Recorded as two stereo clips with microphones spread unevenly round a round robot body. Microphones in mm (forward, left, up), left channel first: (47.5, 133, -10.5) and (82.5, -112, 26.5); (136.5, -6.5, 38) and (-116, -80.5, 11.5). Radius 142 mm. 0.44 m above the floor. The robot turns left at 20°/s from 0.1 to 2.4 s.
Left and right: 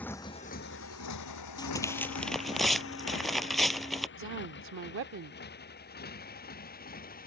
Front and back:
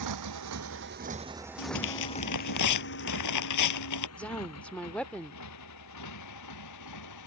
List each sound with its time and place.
0.0 s a motorcycle: 175° right; by 7.3 s 45° left
1.6 s tearing paper: 25° left; by 4.1 s 10° left
4.2 s a woman speaking: 75° right